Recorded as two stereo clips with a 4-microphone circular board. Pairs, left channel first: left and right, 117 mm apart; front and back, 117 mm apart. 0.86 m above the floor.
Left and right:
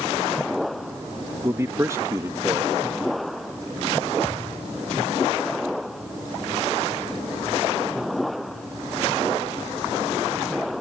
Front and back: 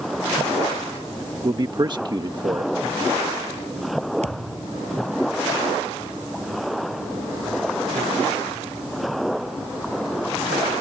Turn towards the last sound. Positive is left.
turn(degrees=165)